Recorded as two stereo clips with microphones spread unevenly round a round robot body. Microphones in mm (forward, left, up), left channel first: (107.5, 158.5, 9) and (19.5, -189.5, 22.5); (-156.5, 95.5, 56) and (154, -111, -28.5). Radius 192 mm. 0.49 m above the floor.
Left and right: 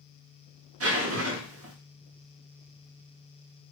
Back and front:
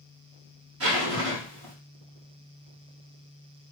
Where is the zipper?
60° right, 1.3 m.